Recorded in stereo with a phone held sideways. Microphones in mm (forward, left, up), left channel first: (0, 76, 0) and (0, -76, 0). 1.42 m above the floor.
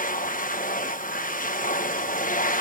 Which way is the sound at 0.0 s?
65° left (ahead or behind).